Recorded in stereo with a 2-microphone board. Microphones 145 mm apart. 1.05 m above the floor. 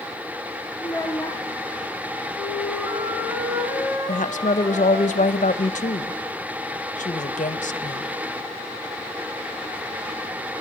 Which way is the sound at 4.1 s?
55° left (ahead or behind).